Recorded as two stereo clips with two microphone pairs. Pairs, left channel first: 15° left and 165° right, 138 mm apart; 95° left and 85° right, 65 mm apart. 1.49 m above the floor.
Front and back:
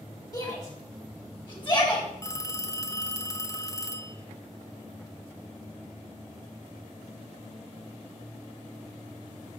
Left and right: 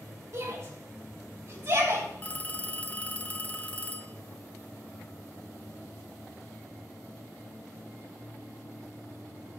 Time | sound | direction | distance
0.3 | a shout | 45° right | 6 m
2.2 | a phone ringing | 55° left | 0.7 m